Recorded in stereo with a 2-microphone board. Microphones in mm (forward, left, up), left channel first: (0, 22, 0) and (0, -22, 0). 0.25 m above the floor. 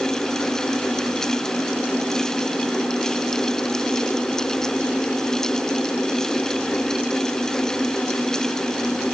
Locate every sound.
Only background noise.